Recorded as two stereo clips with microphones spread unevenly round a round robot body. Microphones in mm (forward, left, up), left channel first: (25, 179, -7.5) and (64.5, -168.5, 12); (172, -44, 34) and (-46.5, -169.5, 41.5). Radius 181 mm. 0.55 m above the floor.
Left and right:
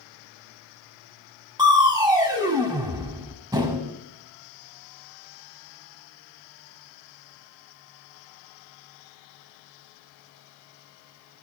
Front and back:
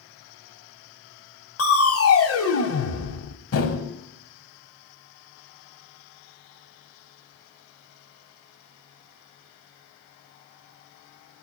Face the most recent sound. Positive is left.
turn(degrees=-5)